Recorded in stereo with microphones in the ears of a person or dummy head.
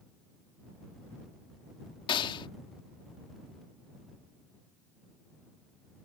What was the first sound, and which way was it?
A gunshot, 25° left (ahead or behind).